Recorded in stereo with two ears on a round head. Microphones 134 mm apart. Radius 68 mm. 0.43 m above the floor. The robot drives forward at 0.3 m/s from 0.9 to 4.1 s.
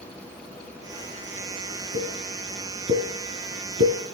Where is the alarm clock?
No alarm clock in this recording.